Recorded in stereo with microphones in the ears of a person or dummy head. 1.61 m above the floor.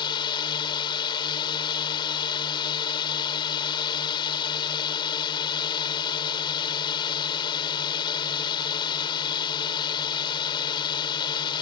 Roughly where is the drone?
Left.